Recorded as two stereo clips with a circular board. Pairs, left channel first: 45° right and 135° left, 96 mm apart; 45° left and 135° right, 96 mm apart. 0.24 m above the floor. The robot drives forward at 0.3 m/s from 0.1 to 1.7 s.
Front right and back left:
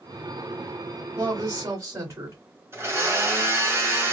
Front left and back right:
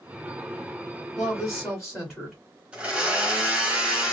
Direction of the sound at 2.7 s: 165° left.